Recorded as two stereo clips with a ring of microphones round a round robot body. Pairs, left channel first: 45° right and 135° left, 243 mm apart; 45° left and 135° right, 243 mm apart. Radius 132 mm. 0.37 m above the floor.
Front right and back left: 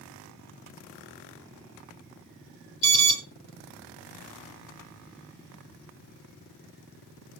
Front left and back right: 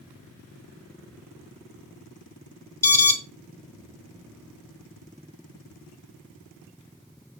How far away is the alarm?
About 2 m.